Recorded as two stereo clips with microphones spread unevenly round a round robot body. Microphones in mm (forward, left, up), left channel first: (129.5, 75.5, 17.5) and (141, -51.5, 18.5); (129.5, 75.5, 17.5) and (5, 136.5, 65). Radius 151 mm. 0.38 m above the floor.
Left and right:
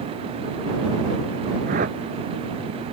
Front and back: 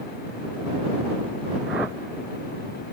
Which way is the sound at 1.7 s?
125° right.